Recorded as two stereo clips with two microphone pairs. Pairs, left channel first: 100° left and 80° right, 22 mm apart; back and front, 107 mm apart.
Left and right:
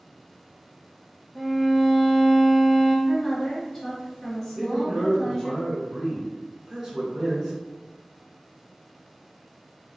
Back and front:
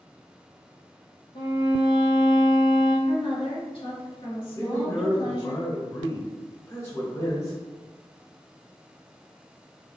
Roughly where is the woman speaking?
Behind.